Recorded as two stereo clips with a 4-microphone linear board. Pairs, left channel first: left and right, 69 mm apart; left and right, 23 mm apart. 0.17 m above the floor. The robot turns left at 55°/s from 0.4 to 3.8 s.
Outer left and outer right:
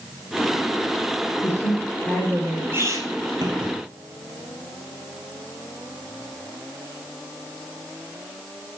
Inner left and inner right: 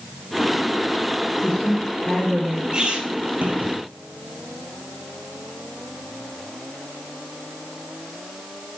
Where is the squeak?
30° right (ahead or behind), 1.7 m; by 3.7 s 75° right (ahead or behind), 1.7 m.